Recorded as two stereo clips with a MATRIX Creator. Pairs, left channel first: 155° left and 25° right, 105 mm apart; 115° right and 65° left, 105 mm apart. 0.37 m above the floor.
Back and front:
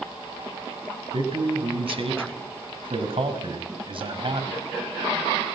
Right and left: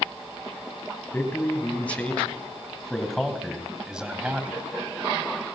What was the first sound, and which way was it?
A man speaking, 45° right.